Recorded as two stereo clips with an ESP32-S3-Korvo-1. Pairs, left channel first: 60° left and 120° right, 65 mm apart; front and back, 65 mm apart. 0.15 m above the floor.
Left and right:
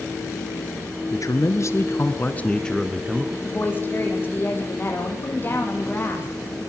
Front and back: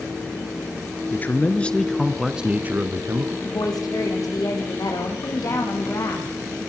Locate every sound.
1.1 s a man speaking: 50° left, 2.5 m; by 3.3 s 165° left, 2.5 m
3.4 s a woman speaking: straight ahead, 5.5 m